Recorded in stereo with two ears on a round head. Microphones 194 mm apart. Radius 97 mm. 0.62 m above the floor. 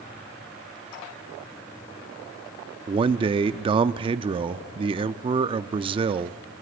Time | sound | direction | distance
2.9 | a man speaking | 25° right (ahead or behind) | 0.7 m